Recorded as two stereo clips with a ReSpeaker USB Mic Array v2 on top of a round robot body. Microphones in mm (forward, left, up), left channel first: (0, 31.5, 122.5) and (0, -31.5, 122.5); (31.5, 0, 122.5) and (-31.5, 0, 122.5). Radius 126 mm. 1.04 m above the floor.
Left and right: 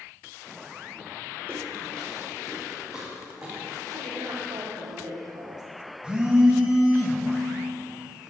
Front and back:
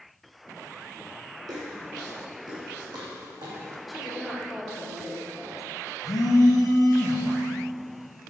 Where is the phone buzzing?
15° right, 1.3 m.